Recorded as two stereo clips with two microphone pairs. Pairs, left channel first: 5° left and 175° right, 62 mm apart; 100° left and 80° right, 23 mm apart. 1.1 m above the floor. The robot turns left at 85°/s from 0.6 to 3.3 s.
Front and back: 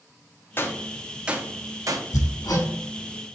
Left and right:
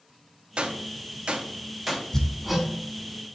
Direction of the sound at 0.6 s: 50° right.